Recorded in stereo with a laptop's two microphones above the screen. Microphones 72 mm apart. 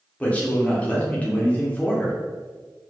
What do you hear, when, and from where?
0.2 s a man speaking: 15° left (ahead or behind), 0.7 m